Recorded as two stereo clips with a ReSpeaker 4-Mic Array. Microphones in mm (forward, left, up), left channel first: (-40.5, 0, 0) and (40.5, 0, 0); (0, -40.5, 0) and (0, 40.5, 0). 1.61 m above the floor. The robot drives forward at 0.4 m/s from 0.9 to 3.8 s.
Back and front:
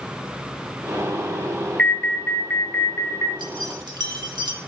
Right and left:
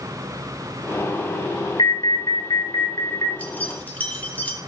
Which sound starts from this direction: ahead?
Keys jangling, at 3.4 s.